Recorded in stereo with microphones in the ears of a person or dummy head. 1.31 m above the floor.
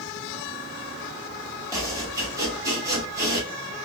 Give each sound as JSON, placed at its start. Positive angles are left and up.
{"t": 1.7, "sound": "chopping", "side_deg": -20, "distance_m": 1.6}